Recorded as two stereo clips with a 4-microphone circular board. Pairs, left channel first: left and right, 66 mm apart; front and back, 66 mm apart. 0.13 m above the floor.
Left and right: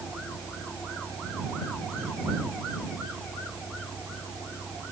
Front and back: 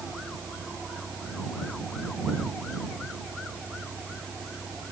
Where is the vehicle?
110° left; by 4.9 s 120° left.